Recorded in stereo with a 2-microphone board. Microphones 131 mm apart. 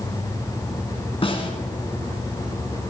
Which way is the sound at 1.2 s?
45° left (ahead or behind).